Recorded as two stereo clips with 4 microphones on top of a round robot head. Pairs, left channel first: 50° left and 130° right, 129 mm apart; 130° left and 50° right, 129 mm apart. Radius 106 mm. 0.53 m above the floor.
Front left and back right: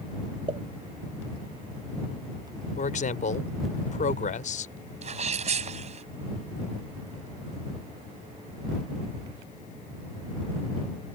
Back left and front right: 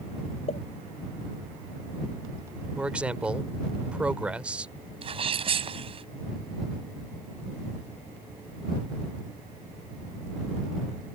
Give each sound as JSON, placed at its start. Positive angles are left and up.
{"t": 0.5, "sound": "a pop", "azimuth_deg": 175}
{"t": 2.8, "sound": "a man speaking", "azimuth_deg": 35}
{"t": 5.0, "sound": "a sneeze", "azimuth_deg": -95}